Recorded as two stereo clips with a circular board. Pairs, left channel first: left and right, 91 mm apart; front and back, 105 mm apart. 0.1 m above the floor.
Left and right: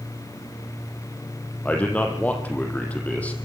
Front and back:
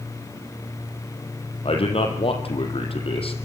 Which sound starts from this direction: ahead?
A man speaking, at 1.6 s.